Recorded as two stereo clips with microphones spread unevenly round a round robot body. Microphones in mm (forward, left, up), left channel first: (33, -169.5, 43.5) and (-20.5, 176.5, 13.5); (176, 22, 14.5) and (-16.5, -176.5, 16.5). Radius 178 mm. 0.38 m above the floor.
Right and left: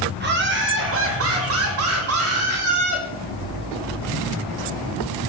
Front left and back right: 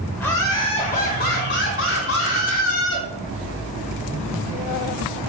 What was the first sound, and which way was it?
Laughter, 125° left.